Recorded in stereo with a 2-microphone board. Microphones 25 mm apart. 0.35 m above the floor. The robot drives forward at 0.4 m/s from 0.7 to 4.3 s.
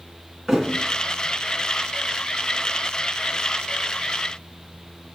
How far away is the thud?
About 1.5 m.